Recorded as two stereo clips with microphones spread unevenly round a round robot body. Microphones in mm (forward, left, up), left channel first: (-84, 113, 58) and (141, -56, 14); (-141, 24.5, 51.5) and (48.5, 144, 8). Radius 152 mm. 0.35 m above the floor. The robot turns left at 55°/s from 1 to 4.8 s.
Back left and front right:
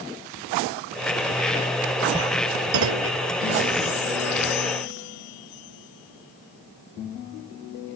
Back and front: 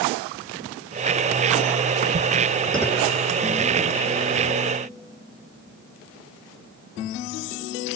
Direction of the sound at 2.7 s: 60° right.